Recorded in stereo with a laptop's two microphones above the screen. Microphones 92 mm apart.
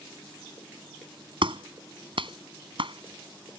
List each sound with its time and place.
1.4 s a clap: 70° right (ahead or behind)